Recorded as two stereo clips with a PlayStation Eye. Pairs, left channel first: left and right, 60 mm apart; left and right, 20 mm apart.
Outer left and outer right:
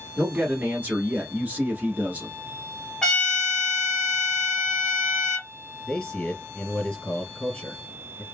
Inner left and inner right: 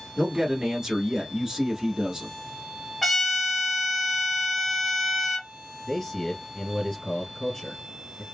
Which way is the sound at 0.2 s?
30° right (ahead or behind).